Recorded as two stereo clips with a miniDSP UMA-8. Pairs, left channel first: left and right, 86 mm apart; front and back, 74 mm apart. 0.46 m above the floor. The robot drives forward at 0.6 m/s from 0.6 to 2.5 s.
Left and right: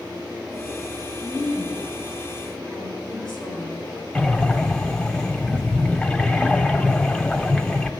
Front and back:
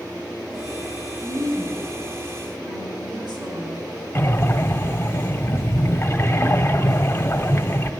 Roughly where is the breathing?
Ahead.